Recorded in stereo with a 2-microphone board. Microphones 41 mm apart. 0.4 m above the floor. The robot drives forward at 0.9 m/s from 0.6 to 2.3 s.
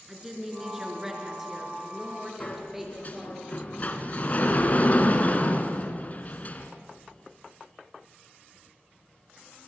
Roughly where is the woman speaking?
Centre.